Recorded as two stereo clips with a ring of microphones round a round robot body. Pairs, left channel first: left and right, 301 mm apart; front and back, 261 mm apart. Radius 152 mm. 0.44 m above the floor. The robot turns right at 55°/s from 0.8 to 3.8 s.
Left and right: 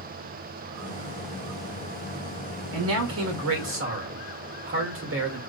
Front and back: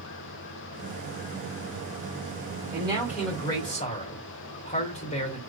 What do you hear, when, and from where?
2.7 s a man speaking: 120° right, 1.9 m; by 5.4 s 60° right, 1.9 m